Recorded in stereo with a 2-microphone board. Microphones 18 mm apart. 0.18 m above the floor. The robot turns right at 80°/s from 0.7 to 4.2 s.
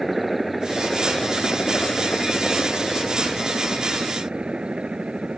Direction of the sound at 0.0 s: 5° right.